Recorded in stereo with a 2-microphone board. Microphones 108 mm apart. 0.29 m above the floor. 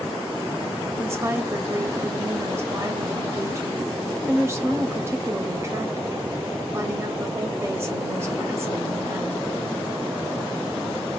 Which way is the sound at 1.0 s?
25° right (ahead or behind).